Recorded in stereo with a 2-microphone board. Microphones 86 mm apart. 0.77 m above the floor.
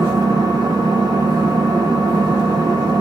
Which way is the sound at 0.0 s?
45° right (ahead or behind).